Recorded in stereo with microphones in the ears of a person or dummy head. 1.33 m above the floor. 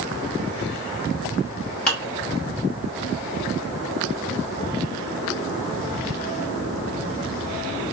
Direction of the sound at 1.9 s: 5° left (ahead or behind).